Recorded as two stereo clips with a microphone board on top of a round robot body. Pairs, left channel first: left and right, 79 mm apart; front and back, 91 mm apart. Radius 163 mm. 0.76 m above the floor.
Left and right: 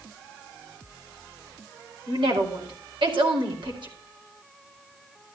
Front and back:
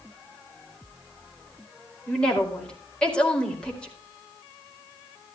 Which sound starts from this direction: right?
A woman speaking, at 2.1 s.